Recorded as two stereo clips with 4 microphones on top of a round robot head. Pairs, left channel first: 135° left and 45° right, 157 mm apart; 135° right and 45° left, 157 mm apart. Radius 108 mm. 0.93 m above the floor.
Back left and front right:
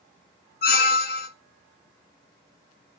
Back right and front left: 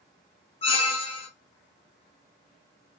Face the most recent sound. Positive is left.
turn(degrees=170)